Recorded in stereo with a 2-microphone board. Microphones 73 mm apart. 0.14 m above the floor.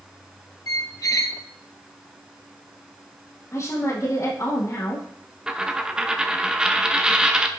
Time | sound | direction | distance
0.7 | a squeak | 50° left (ahead or behind) | 0.5 m
3.5 | a woman speaking | 45° left (ahead or behind) | 4.5 m
5.5 | a dropped coin | 10° right (ahead or behind) | 1.1 m